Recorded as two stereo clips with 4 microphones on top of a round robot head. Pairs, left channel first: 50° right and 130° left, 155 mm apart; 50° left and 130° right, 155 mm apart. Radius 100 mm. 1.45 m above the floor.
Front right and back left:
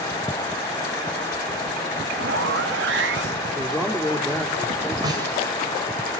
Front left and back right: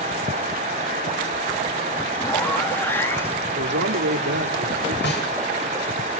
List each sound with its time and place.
2.2 s a zipper: 130° left, 1.9 m
3.5 s a man speaking: 145° right, 3 m
5.0 s a snare drum: 65° left, 7.5 m